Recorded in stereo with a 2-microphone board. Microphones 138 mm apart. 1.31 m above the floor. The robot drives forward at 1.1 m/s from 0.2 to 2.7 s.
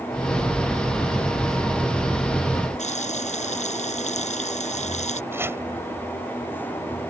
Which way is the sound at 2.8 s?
55° left (ahead or behind).